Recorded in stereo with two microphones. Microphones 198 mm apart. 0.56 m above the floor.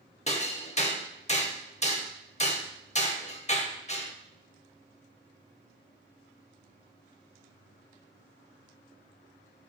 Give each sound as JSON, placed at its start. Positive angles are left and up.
{"t": 0.3, "sound": "hammering", "side_deg": 35, "distance_m": 0.8}